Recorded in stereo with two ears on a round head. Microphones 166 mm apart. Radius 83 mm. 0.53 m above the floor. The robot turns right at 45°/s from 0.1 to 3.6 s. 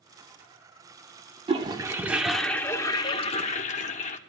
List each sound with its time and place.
1.5 s a toilet flushing: 40° right, 0.8 m; by 4.2 s 55° left, 0.8 m